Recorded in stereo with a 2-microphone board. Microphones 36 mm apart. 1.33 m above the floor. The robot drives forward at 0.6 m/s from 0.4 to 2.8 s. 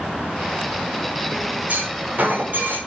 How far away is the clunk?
About 6 m.